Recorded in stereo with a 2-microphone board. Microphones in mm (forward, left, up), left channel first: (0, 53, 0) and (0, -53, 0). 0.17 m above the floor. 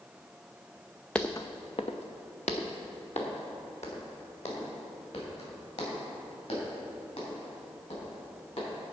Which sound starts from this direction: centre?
Footsteps, at 1.1 s.